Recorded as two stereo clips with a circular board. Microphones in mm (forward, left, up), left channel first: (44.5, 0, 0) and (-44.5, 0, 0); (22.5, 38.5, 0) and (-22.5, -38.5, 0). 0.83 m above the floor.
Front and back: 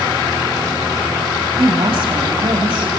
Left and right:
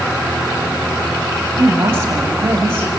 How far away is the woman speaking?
About 5 m.